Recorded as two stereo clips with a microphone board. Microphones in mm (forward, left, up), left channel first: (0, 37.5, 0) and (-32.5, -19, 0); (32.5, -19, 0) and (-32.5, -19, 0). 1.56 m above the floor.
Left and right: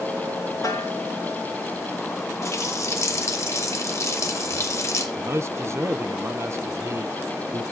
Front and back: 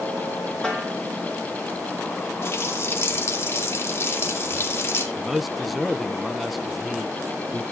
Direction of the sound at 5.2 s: 90° right.